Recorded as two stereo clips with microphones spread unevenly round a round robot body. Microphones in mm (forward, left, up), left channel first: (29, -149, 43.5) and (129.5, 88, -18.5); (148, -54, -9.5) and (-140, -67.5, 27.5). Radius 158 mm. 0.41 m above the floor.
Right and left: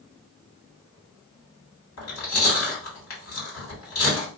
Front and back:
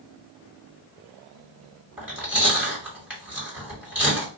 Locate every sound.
2.0 s chewing: 90° right, 2.5 m